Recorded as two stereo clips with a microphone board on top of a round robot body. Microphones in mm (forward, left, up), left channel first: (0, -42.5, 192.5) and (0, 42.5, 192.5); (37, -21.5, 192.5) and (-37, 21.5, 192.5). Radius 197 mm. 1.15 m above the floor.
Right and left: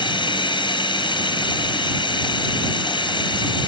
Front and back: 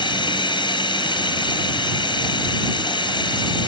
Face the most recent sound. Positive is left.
turn(degrees=-60)